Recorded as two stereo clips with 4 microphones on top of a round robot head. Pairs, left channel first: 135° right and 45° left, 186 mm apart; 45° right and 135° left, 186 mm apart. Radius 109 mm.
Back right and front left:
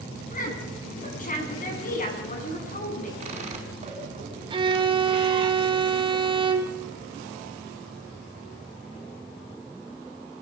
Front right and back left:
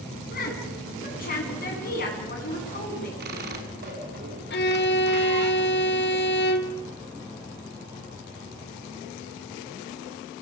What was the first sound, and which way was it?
A woman speaking, 90° right.